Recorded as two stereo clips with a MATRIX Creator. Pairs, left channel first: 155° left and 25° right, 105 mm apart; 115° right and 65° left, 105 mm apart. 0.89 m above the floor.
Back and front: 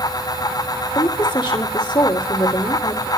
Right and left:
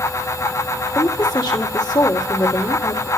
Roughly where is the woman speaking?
Behind.